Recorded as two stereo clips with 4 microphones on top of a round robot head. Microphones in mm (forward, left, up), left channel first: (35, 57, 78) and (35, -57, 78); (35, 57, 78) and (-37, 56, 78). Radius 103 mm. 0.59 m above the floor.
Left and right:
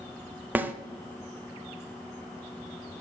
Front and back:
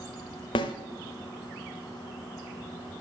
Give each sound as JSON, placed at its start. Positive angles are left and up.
{"t": 0.6, "sound": "a snare drum", "azimuth_deg": -15, "distance_m": 0.5}